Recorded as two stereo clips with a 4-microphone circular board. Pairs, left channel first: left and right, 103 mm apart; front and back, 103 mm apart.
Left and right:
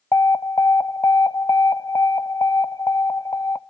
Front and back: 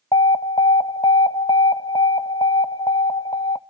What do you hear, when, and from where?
0.1 s an alarm: 35° left, 0.5 m